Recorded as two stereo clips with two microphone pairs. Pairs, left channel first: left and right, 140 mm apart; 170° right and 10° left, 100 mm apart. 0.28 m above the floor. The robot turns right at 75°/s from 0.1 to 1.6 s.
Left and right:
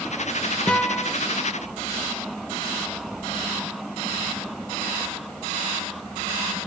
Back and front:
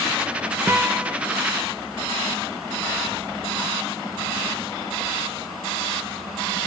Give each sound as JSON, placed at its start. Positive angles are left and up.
{"t": 0.7, "sound": "a guitar", "azimuth_deg": 25, "distance_m": 0.5}